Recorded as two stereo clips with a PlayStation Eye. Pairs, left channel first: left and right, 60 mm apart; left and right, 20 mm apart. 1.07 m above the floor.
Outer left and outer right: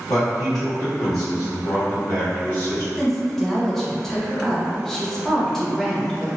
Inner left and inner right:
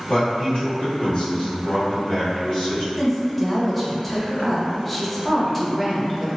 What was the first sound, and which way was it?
A man speaking, 80° left.